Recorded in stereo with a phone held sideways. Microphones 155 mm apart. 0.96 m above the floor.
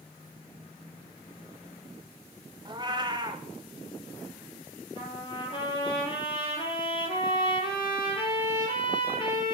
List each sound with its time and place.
2.6 s a cat meowing: 30° right (ahead or behind), 0.9 m
5.0 s a trumpet: 30° left (ahead or behind), 5 m